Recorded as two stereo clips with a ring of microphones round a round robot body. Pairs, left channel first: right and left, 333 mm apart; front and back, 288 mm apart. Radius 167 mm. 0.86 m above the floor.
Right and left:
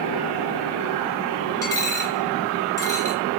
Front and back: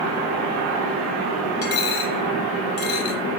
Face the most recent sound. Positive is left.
turn(degrees=-10)